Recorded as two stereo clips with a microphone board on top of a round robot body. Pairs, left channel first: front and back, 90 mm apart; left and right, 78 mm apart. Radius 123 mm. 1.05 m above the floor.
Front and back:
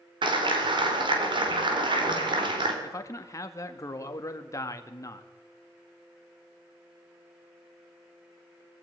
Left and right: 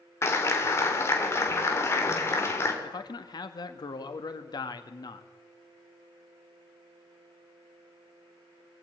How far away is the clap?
About 3.5 m.